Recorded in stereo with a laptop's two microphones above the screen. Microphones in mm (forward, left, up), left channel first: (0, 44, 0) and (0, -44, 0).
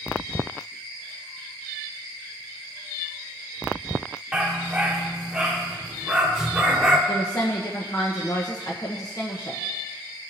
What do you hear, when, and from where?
4.3 s a dog barking: 10° right (ahead or behind), 0.8 m
7.1 s a woman speaking: 40° left (ahead or behind), 1.0 m